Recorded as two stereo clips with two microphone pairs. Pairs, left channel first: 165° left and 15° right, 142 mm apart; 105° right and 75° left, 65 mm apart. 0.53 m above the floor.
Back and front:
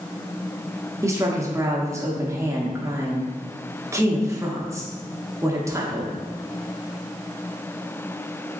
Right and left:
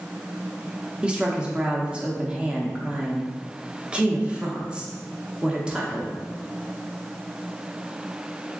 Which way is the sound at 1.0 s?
25° left.